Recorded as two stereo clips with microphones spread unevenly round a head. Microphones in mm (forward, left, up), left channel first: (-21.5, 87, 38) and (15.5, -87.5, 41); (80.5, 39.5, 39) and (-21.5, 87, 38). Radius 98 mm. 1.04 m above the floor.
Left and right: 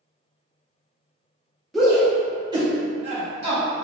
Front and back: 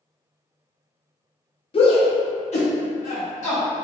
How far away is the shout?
About 1.3 m.